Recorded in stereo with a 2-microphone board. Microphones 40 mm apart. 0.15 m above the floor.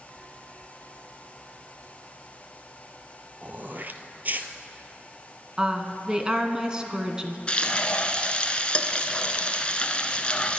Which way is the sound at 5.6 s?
20° right (ahead or behind).